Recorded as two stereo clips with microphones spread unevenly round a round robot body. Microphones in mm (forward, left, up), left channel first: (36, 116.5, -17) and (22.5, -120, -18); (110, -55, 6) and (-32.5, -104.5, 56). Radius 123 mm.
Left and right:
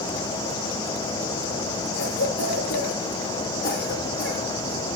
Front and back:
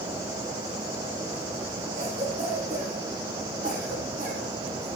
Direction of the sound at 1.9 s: 140° left.